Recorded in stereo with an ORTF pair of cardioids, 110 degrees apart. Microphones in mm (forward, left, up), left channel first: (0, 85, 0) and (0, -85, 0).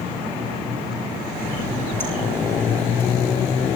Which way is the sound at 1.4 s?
15° left.